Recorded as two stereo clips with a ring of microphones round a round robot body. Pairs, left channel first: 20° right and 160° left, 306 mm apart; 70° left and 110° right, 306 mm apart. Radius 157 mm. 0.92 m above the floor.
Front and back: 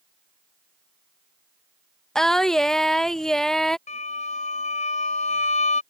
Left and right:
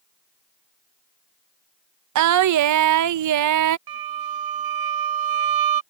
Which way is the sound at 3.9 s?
90° right.